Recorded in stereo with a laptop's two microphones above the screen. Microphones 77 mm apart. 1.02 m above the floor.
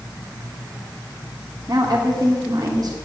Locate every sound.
1.7 s a woman speaking: 55° right (ahead or behind), 2.0 m